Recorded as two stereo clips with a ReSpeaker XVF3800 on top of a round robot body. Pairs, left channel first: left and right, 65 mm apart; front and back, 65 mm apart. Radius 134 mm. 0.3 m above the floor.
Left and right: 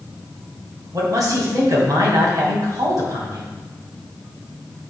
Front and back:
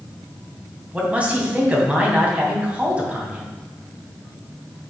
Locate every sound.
0.9 s a man speaking: 110° right, 2.5 m